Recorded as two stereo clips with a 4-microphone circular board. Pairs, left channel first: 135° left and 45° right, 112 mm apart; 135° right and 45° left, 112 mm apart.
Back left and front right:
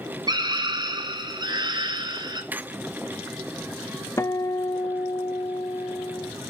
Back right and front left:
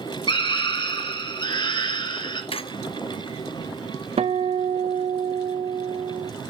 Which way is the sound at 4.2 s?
70° left.